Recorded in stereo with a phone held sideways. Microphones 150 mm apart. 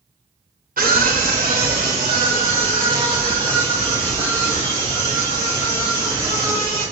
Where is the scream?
60° right (ahead or behind), 0.9 m; by 6.8 s 30° right (ahead or behind), 5 m.